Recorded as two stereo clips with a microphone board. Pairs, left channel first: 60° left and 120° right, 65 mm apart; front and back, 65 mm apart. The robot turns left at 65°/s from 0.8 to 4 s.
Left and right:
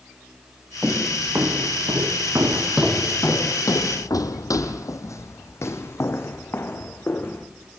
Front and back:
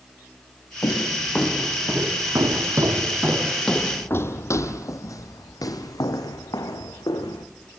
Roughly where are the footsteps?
Ahead right.